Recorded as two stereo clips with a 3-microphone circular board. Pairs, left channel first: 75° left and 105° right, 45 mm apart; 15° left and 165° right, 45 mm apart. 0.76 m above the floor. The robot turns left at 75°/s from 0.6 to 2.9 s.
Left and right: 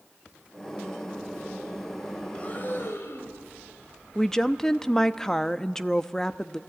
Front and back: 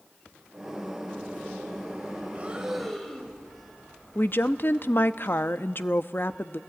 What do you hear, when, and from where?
2.3 s breathing: 140° left, 2.5 m; by 3.4 s 100° left, 2.5 m
4.2 s a woman speaking: 5° right, 0.6 m